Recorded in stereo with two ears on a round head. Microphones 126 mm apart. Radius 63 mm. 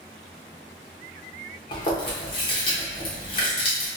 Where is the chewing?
35° left (ahead or behind), 0.9 m.